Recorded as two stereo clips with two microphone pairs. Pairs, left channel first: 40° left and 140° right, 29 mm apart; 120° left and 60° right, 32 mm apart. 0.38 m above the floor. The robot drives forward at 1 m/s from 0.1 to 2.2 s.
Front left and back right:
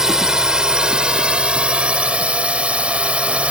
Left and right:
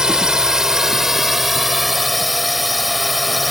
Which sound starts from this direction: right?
A drone, at 0.0 s.